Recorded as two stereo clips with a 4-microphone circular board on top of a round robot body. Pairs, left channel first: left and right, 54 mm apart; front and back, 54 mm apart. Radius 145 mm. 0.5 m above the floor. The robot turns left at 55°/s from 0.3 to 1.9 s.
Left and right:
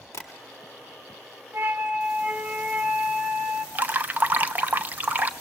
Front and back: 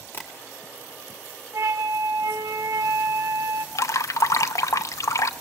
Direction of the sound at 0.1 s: 50° left.